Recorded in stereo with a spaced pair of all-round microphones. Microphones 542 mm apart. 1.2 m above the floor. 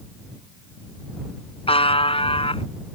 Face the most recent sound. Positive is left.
turn(degrees=10)  # may be behind; listen again after turning